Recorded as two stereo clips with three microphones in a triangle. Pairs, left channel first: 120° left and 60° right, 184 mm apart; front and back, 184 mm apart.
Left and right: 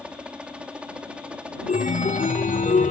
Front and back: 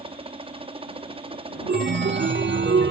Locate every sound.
0.0 s a helicopter: 140° right
1.7 s a chime: 170° left